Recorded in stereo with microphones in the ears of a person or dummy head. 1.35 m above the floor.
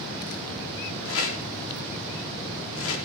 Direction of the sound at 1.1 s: 70° left (ahead or behind).